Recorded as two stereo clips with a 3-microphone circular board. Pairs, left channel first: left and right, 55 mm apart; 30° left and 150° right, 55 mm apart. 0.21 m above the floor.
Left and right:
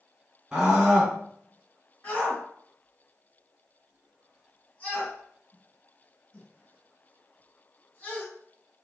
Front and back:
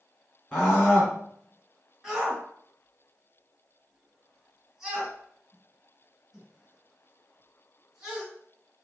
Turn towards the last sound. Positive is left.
turn(degrees=140)